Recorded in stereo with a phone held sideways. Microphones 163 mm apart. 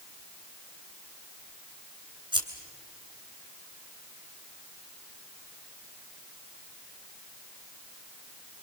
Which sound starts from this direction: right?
Scissors, at 2.3 s.